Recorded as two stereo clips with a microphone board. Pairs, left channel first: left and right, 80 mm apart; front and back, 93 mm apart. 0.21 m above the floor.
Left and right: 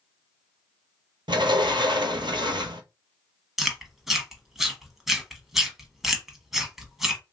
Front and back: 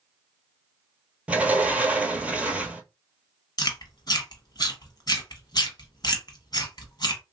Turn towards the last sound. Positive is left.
turn(degrees=-5)